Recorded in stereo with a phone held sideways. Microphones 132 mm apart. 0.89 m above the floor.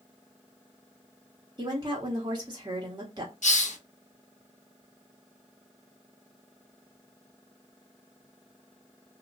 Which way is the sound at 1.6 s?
30° right (ahead or behind).